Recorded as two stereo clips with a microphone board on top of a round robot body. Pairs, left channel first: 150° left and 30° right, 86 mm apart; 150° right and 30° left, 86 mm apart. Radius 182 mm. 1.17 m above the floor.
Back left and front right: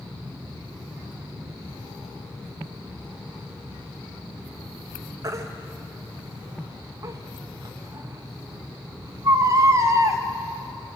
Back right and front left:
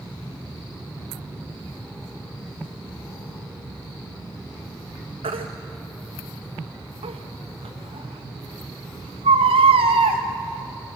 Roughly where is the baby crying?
Ahead left.